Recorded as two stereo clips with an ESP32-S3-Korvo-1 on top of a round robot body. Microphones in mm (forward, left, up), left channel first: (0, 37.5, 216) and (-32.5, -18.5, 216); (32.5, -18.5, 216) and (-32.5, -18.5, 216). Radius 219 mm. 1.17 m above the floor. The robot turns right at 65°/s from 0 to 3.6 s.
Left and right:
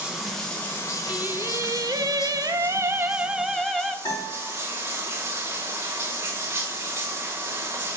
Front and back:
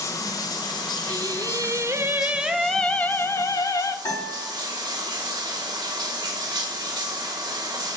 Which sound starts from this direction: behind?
Singing, at 1.1 s.